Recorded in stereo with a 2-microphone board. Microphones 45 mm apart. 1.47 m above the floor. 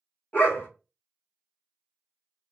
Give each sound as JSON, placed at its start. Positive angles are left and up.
{"t": 0.3, "sound": "a dog barking", "side_deg": 40, "distance_m": 1.3}